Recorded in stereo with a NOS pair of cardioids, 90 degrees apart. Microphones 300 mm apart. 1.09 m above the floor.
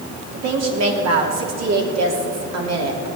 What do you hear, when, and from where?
0.3 s a woman speaking: 60° right, 3 m